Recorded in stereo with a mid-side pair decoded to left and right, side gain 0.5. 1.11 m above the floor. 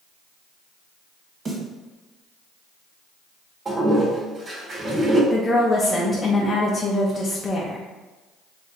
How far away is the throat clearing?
No throat clearing in this recording.